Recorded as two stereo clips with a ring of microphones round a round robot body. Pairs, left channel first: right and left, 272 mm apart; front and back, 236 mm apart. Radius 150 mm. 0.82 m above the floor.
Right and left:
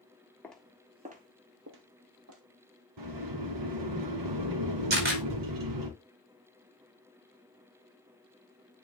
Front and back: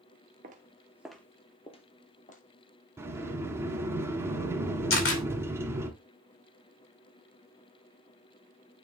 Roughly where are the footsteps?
Behind.